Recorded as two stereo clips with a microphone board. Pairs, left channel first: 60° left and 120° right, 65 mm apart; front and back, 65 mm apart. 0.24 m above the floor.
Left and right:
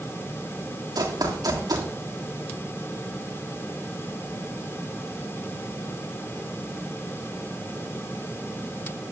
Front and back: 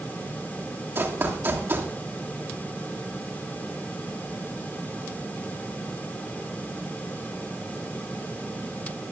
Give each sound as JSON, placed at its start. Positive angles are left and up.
{"t": 0.9, "sound": "running footsteps", "azimuth_deg": -120, "distance_m": 3.0}